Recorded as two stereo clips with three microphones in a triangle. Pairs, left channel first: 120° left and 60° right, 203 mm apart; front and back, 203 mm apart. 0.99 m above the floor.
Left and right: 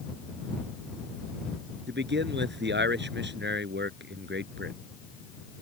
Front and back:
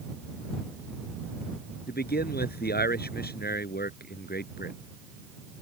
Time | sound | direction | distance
1.9 | a man speaking | 35° right | ?